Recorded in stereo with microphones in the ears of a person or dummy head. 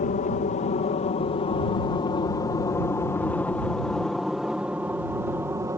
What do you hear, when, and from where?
0.0 s an aircraft: 35° left (ahead or behind); by 5.8 s 15° right (ahead or behind)